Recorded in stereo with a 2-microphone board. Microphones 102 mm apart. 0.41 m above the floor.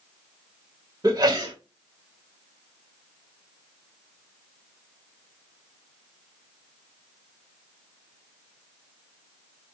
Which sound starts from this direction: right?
A sneeze, at 1.0 s.